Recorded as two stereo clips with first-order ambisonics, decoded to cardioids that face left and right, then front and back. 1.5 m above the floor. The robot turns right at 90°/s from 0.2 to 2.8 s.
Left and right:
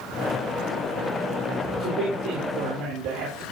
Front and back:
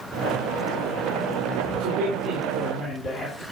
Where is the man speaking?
170° right, 4 m; by 3.4 s 70° right, 4 m.